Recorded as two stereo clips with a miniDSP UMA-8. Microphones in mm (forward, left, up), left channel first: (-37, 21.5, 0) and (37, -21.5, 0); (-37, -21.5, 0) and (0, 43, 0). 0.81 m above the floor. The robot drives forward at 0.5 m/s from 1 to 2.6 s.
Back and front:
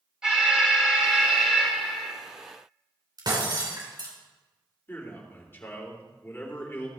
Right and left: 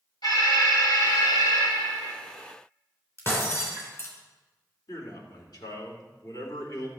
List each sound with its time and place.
0.2 s an alarm: 110° right, 4.5 m; by 2.1 s 120° right, 4.5 m
3.2 s breaking glass: 65° right, 3.5 m
4.9 s a man speaking: 145° right, 2.5 m